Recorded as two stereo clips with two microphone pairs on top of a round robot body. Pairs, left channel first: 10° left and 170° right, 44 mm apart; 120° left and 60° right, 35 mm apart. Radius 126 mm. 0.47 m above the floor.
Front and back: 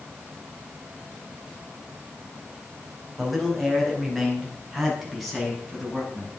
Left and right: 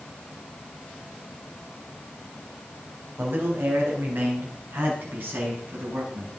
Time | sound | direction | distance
3.2 | a man speaking | 80° right | 4 m